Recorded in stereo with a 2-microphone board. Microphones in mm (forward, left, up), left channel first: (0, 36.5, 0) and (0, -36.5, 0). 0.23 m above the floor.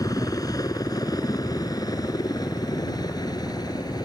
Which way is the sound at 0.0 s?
55° left (ahead or behind).